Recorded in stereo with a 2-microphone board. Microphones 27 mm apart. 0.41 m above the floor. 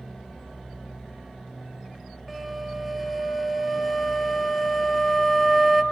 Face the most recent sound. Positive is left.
turn(degrees=0)  # may be behind; listen again after turning